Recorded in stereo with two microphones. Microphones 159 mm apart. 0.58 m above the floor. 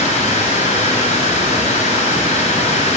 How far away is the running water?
About 3 m.